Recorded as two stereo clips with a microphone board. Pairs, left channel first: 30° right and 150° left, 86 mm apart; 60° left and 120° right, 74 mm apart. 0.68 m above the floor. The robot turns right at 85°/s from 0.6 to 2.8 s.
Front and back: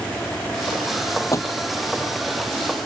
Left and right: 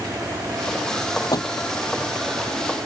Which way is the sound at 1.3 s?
25° left.